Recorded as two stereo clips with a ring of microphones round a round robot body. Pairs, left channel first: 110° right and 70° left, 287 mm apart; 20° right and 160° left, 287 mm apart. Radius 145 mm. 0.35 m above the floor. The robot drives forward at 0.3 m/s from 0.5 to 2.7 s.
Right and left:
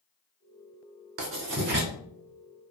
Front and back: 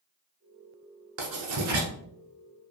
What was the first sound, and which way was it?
Writing, 115° left.